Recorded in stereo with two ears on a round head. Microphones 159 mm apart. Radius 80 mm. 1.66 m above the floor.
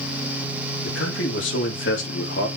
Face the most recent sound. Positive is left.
turn(degrees=75)  # may be behind; listen again after turning